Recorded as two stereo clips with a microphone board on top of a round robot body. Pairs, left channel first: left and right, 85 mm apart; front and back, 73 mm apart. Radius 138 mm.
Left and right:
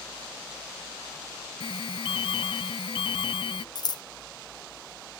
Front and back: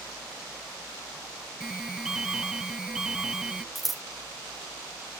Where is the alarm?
95° left.